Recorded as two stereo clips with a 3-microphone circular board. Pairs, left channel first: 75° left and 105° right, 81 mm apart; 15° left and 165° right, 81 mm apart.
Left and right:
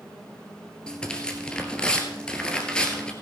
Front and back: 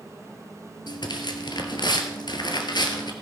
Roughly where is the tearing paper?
Ahead.